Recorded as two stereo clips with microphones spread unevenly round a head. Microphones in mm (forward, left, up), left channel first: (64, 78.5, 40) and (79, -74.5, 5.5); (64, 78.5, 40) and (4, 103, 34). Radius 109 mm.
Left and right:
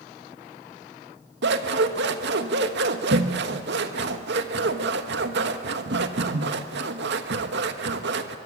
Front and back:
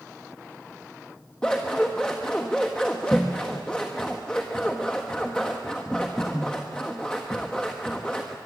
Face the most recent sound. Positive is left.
turn(degrees=-105)